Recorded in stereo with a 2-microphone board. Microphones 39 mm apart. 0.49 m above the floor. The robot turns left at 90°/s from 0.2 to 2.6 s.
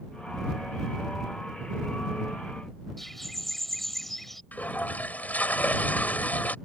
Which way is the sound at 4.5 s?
50° left (ahead or behind).